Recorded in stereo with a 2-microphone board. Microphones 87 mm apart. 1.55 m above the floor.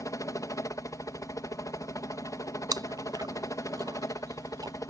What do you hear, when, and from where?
0.0 s a helicopter: 40° left (ahead or behind)
2.7 s chewing: 45° right (ahead or behind)